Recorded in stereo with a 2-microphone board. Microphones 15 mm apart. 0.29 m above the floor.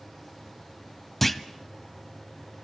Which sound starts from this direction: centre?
A clunk, at 1.2 s.